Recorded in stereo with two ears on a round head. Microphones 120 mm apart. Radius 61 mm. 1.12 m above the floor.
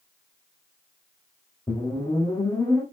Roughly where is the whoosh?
Left.